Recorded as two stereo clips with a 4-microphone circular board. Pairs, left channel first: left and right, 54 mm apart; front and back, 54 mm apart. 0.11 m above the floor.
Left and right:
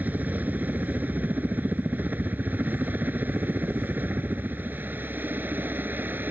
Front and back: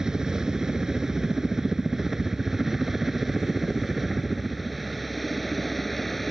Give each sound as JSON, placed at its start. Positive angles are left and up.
{"t": 0.0, "sound": "a helicopter", "azimuth_deg": -110}